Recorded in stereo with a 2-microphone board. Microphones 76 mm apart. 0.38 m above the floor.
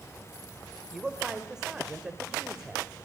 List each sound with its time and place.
0.9 s a man speaking: 10° right (ahead or behind), 1.7 m